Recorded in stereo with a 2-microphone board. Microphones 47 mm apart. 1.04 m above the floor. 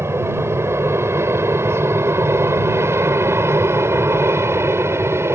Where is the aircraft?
75° right (ahead or behind); by 5.4 s 70° right (ahead or behind).